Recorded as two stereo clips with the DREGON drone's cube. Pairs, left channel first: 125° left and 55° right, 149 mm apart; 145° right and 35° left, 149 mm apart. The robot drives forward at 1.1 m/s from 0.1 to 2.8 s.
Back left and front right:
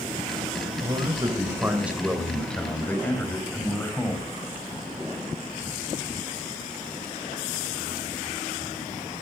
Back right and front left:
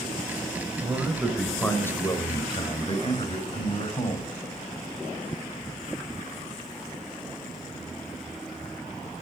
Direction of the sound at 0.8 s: 20° right.